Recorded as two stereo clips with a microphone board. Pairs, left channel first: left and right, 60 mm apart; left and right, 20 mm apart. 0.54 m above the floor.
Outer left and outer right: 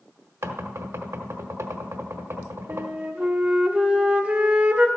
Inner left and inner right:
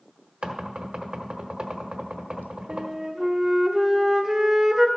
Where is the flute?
20° right (ahead or behind), 1.5 m.